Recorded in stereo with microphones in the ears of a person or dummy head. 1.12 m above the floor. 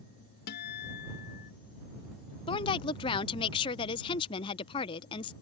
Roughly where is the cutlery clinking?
No cutlery clinking in this recording.